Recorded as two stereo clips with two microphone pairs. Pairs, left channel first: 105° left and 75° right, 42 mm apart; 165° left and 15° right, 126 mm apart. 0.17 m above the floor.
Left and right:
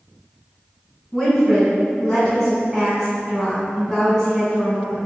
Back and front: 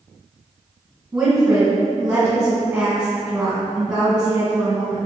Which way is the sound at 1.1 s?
50° left.